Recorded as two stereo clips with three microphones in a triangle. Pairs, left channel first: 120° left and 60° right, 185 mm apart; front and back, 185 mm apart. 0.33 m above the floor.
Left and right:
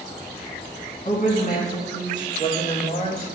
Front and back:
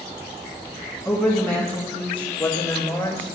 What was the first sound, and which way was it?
A woman speaking, 80° left.